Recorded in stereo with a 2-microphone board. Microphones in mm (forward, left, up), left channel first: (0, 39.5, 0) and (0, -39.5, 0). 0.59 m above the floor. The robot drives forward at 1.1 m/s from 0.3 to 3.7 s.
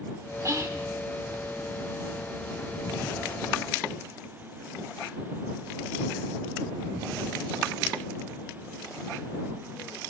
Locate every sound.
0.5 s whispering: 40° right (ahead or behind), 1.3 m; by 0.9 s 35° right (ahead or behind), 1.7 m